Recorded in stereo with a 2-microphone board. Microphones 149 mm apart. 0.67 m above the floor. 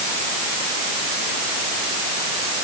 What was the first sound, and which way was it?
Only background noise.